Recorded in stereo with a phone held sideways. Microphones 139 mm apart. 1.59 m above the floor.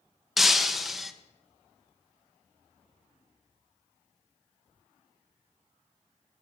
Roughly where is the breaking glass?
Centre.